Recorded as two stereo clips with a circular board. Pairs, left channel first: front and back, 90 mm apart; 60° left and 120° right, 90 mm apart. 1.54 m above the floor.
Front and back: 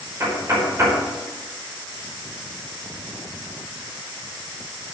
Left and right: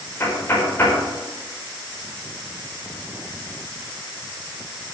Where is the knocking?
120° left, 5 m.